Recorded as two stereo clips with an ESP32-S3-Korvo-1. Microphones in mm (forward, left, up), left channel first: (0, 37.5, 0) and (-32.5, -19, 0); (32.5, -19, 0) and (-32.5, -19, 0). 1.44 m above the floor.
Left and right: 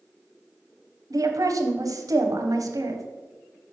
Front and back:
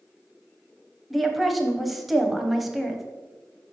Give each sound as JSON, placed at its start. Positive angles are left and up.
{"t": 1.1, "sound": "a woman speaking", "azimuth_deg": -90, "distance_m": 0.8}